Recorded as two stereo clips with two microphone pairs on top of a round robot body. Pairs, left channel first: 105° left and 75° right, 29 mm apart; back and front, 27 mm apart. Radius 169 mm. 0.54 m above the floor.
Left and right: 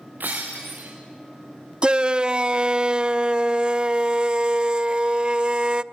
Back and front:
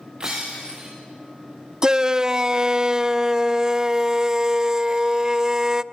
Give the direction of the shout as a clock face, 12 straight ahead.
2 o'clock.